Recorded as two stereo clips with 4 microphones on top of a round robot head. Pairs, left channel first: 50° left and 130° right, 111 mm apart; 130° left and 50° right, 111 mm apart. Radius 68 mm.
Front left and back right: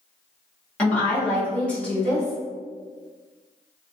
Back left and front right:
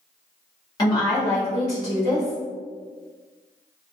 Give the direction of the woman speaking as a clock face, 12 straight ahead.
8 o'clock.